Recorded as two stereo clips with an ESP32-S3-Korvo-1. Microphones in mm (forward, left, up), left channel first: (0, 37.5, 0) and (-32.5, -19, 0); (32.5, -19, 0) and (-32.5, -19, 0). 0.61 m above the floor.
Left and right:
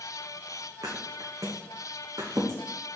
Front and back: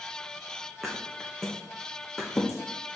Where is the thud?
85° right, 1.9 m.